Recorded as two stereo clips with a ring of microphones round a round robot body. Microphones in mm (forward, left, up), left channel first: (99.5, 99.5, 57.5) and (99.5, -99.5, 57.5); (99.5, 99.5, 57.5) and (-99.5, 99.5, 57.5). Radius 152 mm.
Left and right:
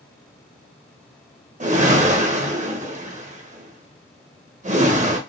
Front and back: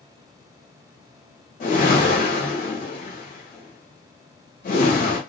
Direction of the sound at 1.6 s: 45° right.